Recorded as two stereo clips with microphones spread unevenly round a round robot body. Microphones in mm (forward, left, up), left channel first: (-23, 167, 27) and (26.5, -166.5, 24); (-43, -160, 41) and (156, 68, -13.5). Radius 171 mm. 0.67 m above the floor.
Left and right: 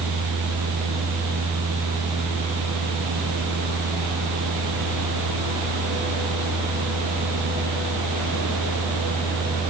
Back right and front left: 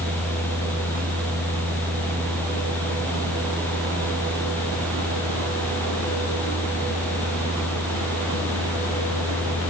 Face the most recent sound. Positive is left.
No sound to turn to.